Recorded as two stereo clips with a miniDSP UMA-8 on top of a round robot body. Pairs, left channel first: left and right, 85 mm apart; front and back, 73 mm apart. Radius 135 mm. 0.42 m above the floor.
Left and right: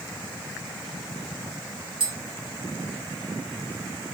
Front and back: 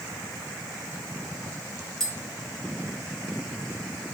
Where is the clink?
I don't hear a clink.